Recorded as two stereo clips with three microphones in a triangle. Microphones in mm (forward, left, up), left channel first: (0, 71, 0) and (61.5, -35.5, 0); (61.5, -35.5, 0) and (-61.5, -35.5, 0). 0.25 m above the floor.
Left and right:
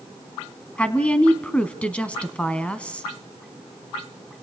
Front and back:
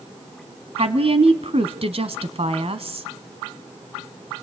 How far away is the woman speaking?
About 1.8 m.